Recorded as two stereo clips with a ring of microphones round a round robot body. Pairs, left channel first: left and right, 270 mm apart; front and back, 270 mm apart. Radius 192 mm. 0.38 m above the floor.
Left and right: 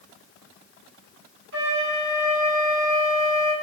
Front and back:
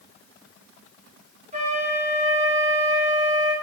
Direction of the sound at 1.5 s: 120° right.